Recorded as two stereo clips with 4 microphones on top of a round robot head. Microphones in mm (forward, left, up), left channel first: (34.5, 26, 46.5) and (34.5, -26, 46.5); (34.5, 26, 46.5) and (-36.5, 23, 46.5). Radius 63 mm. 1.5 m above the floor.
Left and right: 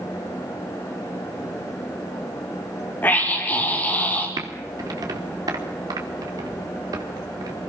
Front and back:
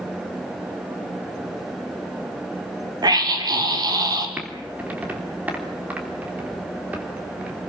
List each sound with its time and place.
3.0 s a scream: 155° left, 6 m
4.4 s typing on a keyboard: 105° right, 3 m